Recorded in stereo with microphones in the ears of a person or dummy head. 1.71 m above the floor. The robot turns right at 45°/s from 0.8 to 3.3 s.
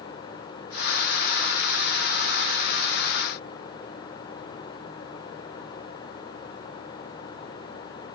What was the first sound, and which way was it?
Only background noise.